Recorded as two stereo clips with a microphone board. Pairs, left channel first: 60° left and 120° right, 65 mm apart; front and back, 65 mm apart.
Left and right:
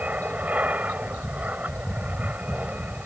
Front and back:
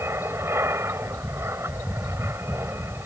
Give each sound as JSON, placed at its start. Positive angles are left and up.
{"t": 0.0, "sound": "an aircraft", "azimuth_deg": -170}